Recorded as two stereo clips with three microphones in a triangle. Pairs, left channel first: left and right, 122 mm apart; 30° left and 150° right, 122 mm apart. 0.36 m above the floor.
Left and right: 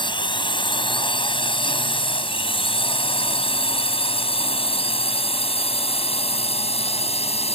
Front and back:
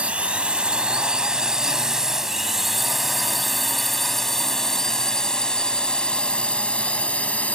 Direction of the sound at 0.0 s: 130° left.